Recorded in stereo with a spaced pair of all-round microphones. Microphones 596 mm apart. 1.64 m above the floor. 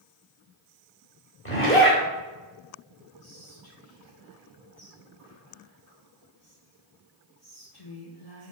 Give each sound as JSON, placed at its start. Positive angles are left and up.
{"t": 1.4, "sound": "a zipper", "side_deg": 20, "distance_m": 2.0}
{"t": 3.2, "sound": "whispering", "side_deg": 80, "distance_m": 2.0}